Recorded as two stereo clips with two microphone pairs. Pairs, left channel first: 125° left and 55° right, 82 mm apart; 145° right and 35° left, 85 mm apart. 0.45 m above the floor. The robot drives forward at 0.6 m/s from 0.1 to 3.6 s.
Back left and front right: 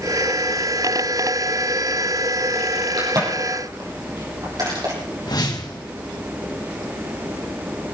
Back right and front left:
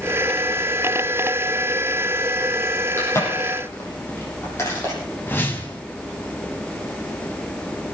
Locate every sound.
3.0 s a crack: 85° right, 8 m; by 5.0 s 90° right, 8 m
5.3 s a whoosh: 150° left, 2.5 m